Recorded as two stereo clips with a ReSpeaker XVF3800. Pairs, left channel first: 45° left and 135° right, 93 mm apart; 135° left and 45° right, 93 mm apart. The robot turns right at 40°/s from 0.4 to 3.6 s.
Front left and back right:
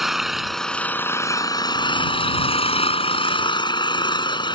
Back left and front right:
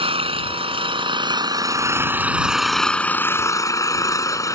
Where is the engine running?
45° right; by 4.6 s 80° left.